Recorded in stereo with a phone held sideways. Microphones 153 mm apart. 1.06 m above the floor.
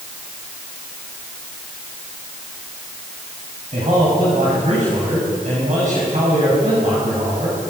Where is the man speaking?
50° right (ahead or behind), 6.5 m.